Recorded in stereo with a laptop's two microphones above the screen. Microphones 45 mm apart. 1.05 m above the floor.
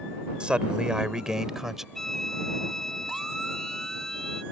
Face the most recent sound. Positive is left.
turn(degrees=10)  # may be behind; listen again after turning